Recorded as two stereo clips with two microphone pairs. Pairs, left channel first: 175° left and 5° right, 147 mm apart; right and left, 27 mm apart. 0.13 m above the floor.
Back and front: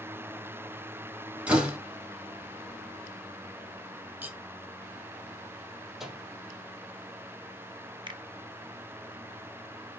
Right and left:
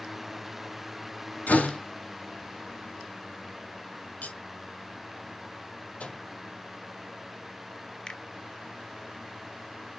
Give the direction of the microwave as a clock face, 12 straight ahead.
3 o'clock.